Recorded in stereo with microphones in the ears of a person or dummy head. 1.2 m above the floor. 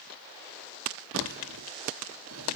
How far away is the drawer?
About 1.6 m.